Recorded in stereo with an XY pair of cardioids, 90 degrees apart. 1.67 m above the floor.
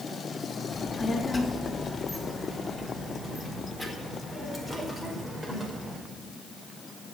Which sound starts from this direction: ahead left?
A child speaking, at 0.7 s.